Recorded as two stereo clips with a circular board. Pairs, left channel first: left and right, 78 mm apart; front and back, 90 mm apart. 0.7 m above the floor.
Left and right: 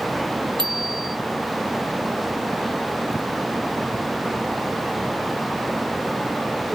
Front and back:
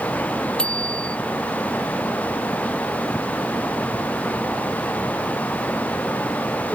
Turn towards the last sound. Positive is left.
turn(degrees=-75)